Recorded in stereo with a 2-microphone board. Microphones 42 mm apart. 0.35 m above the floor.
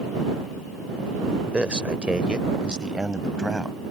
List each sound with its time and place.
1.5 s a man speaking: 25° right (ahead or behind); by 3.8 s 15° right (ahead or behind)